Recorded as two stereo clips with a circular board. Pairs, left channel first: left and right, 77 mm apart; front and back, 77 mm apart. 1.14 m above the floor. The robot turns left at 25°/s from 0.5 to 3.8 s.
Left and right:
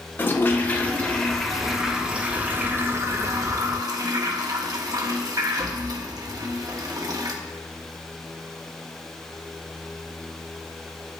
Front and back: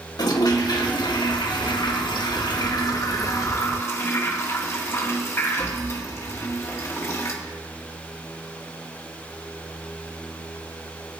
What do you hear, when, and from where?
0.2 s a toilet flushing: 25° left, 1.4 m; by 7.3 s 55° right, 1.4 m